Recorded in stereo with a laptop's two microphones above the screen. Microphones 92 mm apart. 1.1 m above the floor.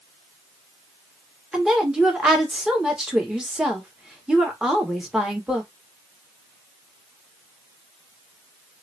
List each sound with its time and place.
1.5 s a woman speaking: 5° right (ahead or behind), 1.5 m